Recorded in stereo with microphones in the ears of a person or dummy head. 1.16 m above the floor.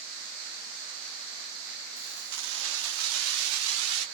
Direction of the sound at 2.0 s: 45° right (ahead or behind).